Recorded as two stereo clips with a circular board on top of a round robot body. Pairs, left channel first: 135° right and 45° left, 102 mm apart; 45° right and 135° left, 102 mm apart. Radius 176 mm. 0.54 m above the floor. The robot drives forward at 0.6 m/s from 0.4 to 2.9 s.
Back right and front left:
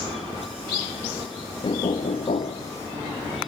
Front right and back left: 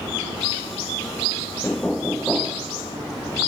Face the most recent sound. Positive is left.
turn(degrees=-150)